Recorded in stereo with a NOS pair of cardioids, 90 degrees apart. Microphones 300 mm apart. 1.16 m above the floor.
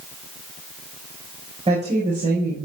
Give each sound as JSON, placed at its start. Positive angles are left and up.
{"t": 1.7, "sound": "a woman speaking", "azimuth_deg": -20, "distance_m": 4.5}